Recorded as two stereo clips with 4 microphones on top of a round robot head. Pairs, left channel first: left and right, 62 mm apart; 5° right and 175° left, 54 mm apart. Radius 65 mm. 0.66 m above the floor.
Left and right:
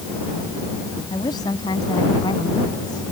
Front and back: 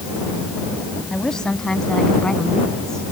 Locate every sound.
1.1 s a woman speaking: 75° left